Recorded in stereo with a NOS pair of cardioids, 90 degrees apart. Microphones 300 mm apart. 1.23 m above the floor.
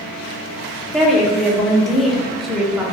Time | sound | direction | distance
0.9 | a woman speaking | straight ahead | 0.7 m